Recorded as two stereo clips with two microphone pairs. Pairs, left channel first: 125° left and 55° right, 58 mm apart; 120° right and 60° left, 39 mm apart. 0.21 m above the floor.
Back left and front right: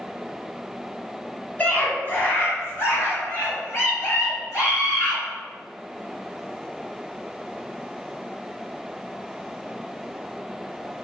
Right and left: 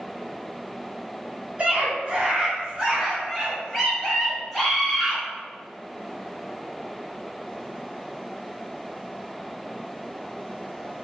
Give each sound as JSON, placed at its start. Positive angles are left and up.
{"t": 1.6, "sound": "a scream", "azimuth_deg": 85, "distance_m": 1.6}